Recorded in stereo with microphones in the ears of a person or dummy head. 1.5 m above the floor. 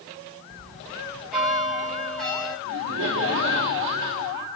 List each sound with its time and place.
0.5 s a bell: centre (ahead or behind), 5.5 m
2.6 s laughter: 70° right (ahead or behind), 4.5 m